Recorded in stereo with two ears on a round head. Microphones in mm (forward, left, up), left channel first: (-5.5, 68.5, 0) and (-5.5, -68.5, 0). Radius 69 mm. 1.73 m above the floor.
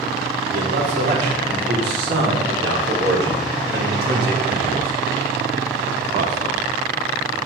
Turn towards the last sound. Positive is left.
turn(degrees=-45)  # may be behind; listen again after turning